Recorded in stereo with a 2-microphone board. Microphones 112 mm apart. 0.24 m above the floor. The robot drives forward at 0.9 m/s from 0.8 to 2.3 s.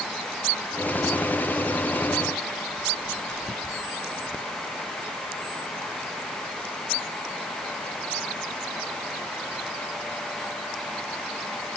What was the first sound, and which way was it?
Only background noise.